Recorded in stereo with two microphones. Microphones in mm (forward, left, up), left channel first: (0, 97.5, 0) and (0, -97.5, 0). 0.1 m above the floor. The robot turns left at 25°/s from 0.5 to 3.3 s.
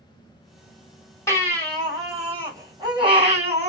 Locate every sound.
1.3 s a baby crying: 15° left, 1.7 m; by 3.7 s 35° right, 1.7 m